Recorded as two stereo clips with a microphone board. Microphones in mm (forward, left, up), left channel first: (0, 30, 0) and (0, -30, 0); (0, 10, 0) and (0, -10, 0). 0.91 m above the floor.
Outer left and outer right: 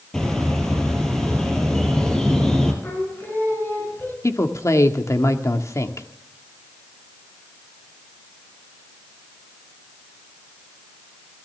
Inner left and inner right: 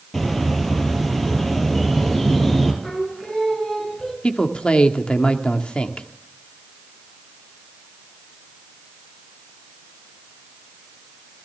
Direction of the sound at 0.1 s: 5° left (ahead or behind).